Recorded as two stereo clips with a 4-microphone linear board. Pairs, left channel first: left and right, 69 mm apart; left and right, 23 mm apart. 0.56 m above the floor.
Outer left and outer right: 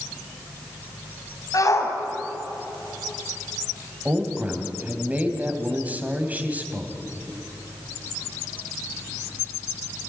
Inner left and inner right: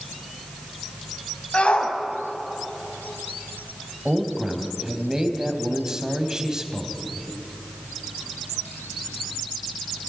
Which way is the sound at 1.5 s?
50° left (ahead or behind).